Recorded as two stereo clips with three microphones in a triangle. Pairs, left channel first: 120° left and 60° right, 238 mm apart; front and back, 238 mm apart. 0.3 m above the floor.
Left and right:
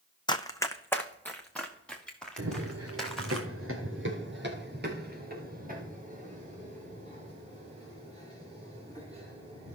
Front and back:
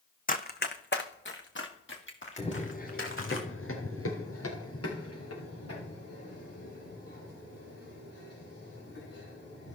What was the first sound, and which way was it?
Running footsteps, 50° left.